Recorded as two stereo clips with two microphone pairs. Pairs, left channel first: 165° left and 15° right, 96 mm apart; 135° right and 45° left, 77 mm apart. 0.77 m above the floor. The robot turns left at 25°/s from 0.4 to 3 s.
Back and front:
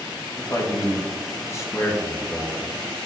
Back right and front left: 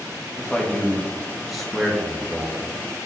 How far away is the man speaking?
About 0.9 m.